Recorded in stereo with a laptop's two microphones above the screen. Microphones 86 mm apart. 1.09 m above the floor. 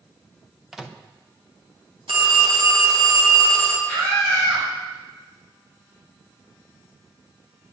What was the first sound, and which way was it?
A microwave, 5° right (ahead or behind).